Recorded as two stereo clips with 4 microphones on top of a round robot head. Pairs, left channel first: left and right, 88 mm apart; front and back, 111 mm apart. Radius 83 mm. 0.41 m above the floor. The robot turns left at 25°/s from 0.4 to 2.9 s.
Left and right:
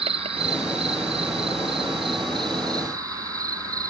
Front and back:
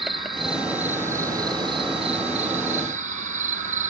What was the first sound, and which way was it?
An insect, 90° right.